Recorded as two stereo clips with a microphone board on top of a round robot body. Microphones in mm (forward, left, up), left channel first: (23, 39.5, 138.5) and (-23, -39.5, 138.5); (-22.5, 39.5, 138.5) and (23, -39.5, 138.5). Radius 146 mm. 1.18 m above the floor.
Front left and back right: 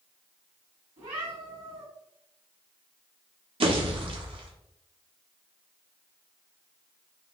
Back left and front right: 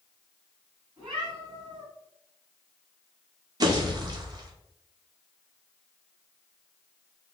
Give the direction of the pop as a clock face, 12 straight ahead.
4 o'clock.